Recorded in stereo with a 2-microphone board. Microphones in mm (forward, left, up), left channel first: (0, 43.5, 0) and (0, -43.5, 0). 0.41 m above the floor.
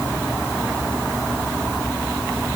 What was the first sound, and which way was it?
Only background noise.